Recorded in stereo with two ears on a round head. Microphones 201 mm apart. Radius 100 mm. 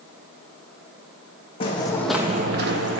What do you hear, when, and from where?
1.6 s footsteps: 25° left (ahead or behind), 1.2 m; by 3.0 s 50° right (ahead or behind), 1.2 m